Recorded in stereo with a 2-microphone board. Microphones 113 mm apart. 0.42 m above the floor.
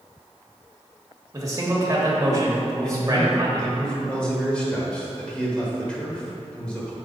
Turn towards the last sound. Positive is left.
turn(degrees=10)  # may be behind; listen again after turning